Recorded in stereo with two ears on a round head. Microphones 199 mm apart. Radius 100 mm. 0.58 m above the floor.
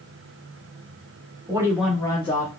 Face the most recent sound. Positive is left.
turn(degrees=35)  # may be behind; listen again after turning